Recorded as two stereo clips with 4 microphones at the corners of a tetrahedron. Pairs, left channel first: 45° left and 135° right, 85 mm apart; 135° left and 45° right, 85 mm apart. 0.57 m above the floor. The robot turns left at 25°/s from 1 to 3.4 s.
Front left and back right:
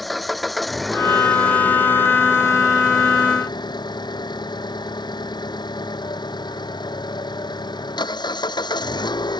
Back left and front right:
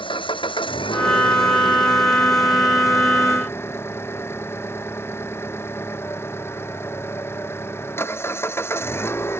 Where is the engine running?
135° left; by 9.4 s 75° left.